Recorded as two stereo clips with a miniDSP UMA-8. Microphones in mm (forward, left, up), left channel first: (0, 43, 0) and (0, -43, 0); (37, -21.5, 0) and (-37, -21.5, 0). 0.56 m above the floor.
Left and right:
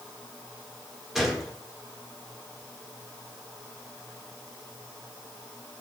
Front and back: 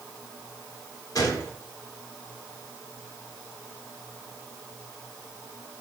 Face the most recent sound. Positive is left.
turn(degrees=-5)